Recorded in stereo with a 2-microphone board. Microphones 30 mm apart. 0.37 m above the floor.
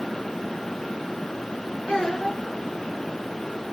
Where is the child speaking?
35° left (ahead or behind), 3 m.